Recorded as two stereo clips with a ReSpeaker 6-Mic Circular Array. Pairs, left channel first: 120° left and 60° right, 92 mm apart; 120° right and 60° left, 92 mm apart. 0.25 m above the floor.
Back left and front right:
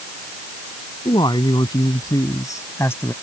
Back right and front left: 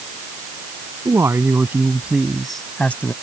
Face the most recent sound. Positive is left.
turn(degrees=180)